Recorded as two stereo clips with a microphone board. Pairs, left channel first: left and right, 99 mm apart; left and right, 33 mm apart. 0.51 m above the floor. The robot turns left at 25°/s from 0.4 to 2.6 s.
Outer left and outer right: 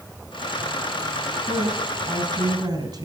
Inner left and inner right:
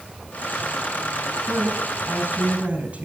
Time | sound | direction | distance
1.5 | a woman speaking | 70° right (ahead or behind) | 2.5 m